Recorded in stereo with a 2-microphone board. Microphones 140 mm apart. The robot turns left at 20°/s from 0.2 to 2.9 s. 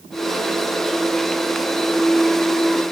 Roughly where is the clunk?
I don't hear a clunk.